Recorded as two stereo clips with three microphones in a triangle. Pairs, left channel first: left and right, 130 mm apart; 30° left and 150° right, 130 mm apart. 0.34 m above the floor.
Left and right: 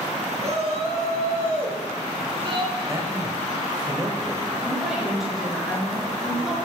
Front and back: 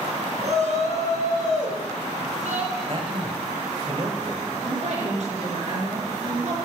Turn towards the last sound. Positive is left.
turn(degrees=-175)